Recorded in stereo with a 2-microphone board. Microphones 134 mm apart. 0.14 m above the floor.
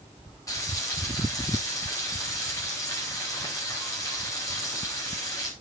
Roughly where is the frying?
Left.